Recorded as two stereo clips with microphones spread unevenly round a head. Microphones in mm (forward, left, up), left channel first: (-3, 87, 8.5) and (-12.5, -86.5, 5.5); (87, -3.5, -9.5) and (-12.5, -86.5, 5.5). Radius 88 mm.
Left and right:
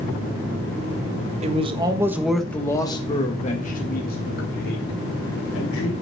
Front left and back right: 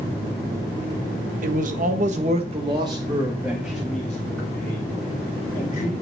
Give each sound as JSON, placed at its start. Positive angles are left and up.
{"t": 1.4, "sound": "a man speaking", "azimuth_deg": -140, "distance_m": 1.4}